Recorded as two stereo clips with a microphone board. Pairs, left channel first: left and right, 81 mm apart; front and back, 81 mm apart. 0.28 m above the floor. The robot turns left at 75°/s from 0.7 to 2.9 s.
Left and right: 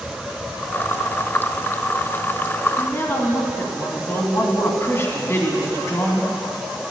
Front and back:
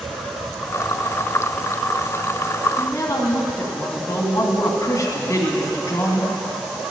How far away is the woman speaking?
About 2 m.